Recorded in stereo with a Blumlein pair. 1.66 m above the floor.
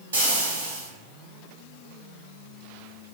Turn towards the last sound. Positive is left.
turn(degrees=-70)